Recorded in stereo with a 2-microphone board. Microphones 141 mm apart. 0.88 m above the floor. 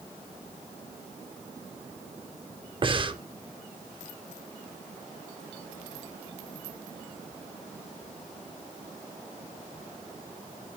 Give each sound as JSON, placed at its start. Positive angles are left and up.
{"t": 2.8, "sound": "breathing", "side_deg": -35, "distance_m": 0.7}